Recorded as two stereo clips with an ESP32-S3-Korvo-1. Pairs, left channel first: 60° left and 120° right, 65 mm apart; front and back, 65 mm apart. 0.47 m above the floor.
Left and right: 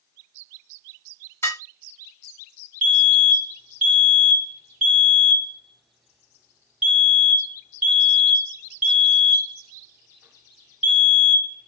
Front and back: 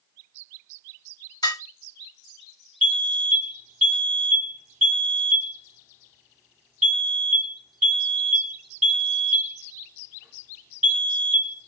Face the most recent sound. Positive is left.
turn(degrees=-115)